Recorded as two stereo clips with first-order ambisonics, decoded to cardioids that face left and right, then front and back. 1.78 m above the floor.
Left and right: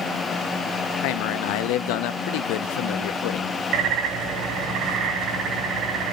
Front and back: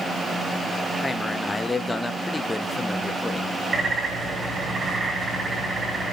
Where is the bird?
115° right, 2.5 m.